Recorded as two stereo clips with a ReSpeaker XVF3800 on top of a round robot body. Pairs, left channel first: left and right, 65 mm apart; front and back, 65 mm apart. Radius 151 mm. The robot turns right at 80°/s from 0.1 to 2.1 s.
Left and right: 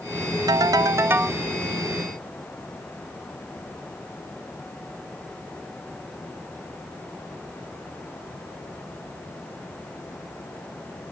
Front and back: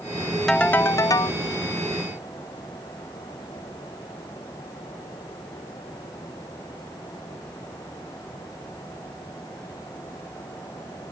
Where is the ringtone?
85° right; by 1.4 s 10° right.